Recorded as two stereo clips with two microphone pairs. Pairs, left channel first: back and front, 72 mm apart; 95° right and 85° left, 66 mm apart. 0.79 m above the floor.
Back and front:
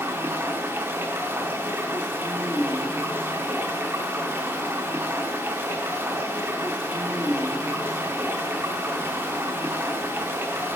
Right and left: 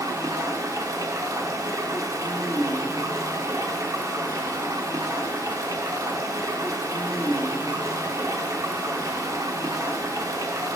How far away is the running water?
About 0.9 m.